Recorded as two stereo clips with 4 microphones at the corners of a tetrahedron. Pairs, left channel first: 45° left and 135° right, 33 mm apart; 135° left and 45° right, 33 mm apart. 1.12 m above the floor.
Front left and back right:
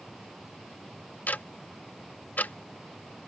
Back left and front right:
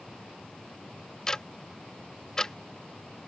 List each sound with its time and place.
1.3 s ticking: 65° left